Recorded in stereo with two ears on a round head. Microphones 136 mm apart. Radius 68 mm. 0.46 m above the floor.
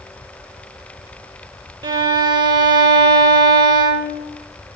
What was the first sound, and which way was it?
A violin, 30° right (ahead or behind).